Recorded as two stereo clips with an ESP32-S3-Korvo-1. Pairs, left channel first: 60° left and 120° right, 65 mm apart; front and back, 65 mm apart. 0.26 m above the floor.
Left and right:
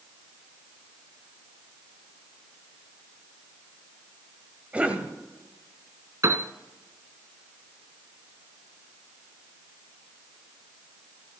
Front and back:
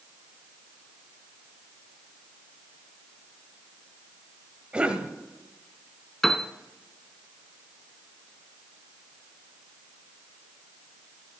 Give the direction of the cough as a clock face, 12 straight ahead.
5 o'clock.